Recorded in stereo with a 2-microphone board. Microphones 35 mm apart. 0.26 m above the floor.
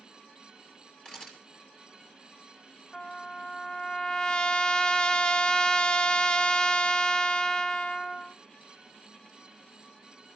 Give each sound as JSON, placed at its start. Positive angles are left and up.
{"t": 1.1, "sound": "a camera shutter", "side_deg": 25, "distance_m": 3.5}
{"t": 2.9, "sound": "a trumpet", "side_deg": 25, "distance_m": 0.8}